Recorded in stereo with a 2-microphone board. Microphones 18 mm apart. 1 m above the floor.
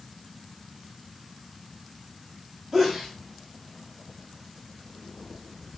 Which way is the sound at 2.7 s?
15° right (ahead or behind).